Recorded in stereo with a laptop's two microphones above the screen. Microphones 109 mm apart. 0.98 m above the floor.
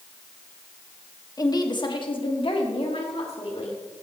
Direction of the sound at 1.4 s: 35° left (ahead or behind).